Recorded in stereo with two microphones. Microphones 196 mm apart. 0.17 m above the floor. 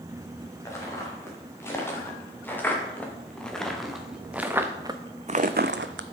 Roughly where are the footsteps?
Centre.